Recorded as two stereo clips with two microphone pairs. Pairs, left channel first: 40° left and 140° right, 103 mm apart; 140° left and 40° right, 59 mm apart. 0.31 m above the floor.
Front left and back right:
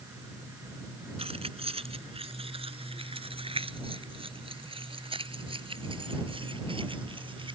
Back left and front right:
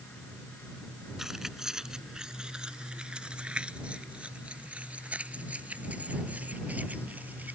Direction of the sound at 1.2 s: 125° right.